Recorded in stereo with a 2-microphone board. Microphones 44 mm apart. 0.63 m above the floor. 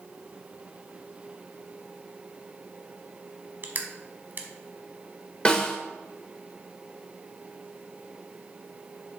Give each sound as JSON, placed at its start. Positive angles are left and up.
{"t": 3.6, "sound": "crushing", "side_deg": -50, "distance_m": 1.0}
{"t": 5.5, "sound": "a snare drum", "side_deg": 20, "distance_m": 1.0}